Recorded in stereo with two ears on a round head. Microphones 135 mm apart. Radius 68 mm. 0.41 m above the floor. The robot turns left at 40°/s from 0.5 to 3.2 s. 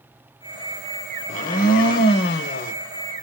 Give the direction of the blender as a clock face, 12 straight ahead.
8 o'clock.